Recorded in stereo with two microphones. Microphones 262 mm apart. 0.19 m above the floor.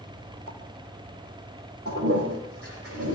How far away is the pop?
About 3 m.